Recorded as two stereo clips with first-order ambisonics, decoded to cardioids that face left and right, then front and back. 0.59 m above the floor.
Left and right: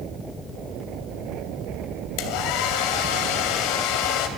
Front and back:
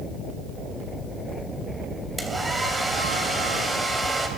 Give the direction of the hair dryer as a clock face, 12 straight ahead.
9 o'clock.